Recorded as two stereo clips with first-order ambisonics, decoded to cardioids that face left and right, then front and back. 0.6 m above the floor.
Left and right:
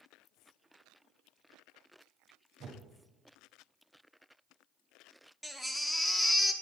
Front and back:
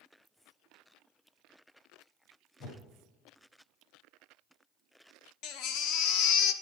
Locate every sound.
2.6 s a whoosh: 40° right, 1.4 m
5.4 s a baby crying: 10° left, 0.5 m